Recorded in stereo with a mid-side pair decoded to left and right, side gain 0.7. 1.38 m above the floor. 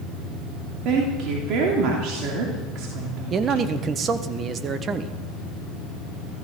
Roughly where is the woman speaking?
Ahead right.